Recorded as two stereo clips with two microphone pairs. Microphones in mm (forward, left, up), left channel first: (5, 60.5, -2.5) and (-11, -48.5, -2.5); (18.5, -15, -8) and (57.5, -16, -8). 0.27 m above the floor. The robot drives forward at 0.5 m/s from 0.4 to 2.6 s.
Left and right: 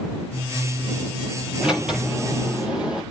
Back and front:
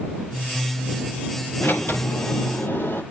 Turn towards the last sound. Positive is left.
turn(degrees=180)